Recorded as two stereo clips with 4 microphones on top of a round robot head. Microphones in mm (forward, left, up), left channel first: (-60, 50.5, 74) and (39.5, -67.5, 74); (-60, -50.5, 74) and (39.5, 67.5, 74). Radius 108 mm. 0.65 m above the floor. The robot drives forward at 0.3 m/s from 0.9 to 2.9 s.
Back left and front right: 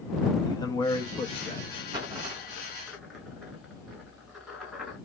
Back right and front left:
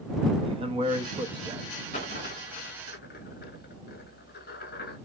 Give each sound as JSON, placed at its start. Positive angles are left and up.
{"t": 0.4, "sound": "a man speaking", "azimuth_deg": 75, "distance_m": 0.9}
{"t": 1.9, "sound": "a dropped coin", "azimuth_deg": -100, "distance_m": 0.6}